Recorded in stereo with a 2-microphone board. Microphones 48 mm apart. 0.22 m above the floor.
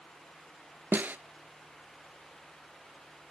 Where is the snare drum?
40° right (ahead or behind), 0.5 m.